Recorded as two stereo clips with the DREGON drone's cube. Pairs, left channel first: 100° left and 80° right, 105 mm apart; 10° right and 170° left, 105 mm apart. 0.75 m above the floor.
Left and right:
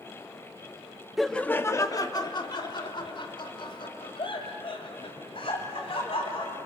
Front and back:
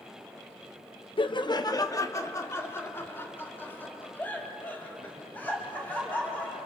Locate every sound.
1.2 s laughter: 10° left, 0.6 m; by 6.6 s 65° left, 5 m